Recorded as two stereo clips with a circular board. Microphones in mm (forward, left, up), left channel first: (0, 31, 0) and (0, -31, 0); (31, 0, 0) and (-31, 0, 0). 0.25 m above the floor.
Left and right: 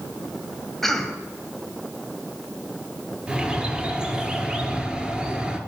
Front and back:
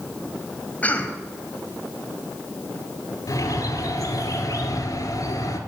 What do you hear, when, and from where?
0.8 s a cough: 10° left, 1.5 m
3.3 s a bird: 15° right, 1.4 m